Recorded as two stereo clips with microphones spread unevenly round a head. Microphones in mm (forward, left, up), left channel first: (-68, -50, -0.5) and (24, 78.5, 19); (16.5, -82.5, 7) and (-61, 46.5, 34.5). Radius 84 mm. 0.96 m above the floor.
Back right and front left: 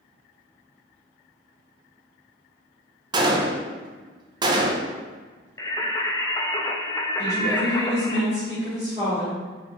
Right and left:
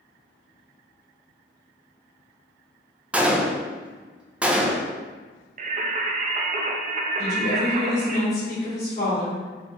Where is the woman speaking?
50° right, 2.0 m.